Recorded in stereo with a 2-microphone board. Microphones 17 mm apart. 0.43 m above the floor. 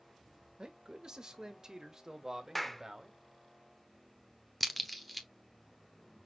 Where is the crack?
Centre (ahead or behind), 0.9 m.